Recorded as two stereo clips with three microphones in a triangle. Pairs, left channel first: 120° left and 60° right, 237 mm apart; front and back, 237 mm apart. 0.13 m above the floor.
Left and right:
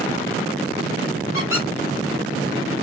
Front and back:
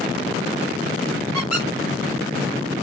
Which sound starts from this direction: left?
A squeak, at 1.3 s.